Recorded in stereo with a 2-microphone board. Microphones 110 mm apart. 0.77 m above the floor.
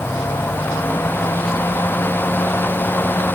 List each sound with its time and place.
Only background noise.